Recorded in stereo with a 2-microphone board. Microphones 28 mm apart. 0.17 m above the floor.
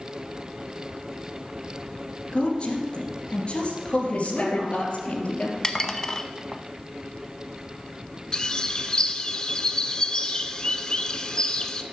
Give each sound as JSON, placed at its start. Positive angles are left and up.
{"t": 2.3, "sound": "a woman speaking", "side_deg": 45, "distance_m": 2.5}
{"t": 4.1, "sound": "a woman speaking", "side_deg": 55, "distance_m": 3.0}
{"t": 5.6, "sound": "dishes clattering", "side_deg": 20, "distance_m": 0.7}
{"t": 8.3, "sound": "a bird", "side_deg": 30, "distance_m": 0.7}